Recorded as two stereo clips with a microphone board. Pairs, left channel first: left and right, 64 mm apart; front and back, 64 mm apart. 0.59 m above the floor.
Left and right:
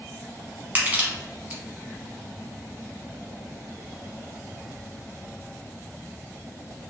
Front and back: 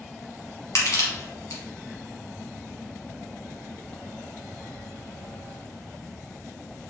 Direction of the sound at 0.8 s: 30° right.